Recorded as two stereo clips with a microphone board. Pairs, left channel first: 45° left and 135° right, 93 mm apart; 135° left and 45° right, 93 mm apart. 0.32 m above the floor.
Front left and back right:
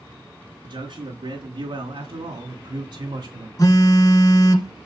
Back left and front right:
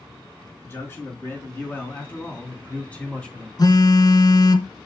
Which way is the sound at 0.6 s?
160° right.